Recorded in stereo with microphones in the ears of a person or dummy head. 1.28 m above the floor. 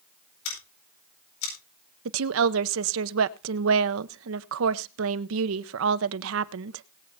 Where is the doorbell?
No doorbell in this recording.